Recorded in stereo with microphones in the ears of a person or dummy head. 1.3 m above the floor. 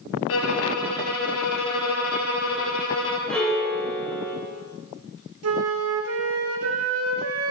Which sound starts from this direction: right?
A flute, at 5.4 s.